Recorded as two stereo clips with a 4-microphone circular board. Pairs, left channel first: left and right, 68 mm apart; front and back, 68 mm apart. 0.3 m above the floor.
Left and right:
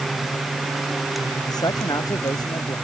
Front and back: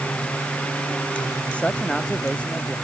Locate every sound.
1.5 s a man speaking: 75° left